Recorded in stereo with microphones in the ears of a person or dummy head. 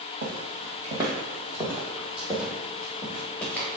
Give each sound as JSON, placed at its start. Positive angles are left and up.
{"t": 0.2, "sound": "footsteps", "side_deg": -40, "distance_m": 1.9}